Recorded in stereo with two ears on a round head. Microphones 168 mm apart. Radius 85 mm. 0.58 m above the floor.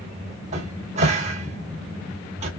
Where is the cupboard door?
40° right (ahead or behind), 2 m.